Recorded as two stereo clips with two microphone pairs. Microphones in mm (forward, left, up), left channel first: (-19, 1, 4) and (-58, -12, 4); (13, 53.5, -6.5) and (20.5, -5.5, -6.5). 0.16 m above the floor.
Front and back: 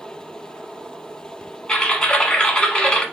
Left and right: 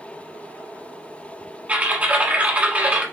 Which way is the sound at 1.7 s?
35° right.